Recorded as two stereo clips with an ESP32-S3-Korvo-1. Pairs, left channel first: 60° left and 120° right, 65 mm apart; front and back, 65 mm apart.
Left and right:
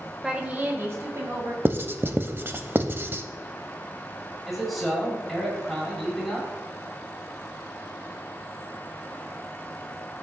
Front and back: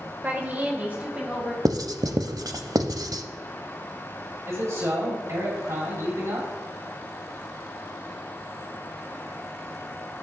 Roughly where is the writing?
Behind.